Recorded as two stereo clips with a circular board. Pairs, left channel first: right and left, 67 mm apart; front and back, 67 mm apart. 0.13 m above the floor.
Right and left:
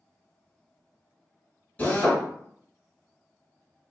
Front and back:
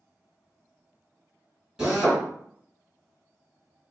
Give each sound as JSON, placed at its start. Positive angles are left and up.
{"t": 1.8, "sound": "a drill", "azimuth_deg": -115, "distance_m": 1.8}